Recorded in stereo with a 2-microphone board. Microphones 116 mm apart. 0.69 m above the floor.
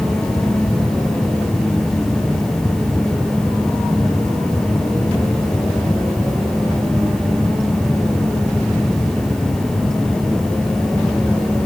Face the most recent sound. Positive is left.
No sound to turn to.